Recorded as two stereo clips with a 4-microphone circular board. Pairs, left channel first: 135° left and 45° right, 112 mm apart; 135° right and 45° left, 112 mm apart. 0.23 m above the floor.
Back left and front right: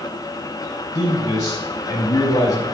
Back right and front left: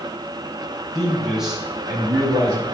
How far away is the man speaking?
About 1.4 m.